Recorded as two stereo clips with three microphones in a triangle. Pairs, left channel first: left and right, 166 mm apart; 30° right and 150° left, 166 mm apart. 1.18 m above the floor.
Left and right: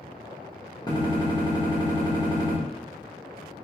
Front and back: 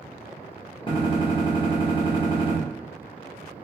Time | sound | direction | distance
0.9 | a gunshot | 25° left | 1.7 m